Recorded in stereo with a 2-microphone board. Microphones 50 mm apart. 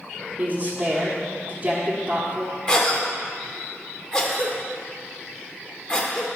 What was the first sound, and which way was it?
A woman speaking, 35° right (ahead or behind).